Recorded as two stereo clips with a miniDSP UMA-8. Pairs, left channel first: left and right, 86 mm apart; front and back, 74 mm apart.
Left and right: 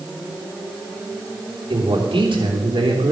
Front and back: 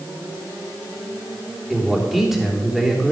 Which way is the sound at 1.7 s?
95° right.